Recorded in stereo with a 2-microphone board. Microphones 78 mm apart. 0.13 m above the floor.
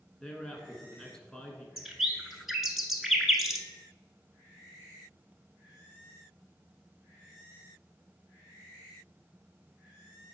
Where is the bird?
5° right (ahead or behind), 0.8 m.